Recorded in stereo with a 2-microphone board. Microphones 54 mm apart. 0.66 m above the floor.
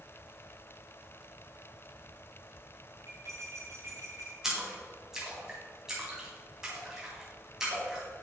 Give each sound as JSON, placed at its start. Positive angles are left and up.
{"t": 3.1, "sound": "cutlery clinking", "side_deg": -60, "distance_m": 3.0}
{"t": 4.4, "sound": "a splash", "side_deg": -10, "distance_m": 3.0}